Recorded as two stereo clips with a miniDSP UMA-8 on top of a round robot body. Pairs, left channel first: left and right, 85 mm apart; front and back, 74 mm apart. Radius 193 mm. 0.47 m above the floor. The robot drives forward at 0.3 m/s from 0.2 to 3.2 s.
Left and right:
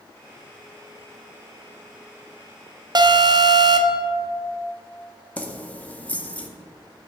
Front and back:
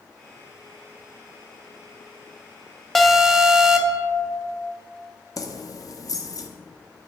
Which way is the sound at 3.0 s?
85° right.